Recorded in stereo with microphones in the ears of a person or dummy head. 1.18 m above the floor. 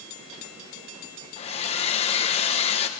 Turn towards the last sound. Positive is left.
turn(degrees=30)  # may be behind; listen again after turning